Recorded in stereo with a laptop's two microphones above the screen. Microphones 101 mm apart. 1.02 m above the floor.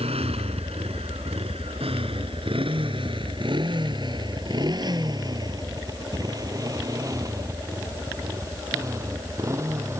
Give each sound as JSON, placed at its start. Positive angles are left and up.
{"t": 0.0, "sound": "a motorcycle", "side_deg": -85}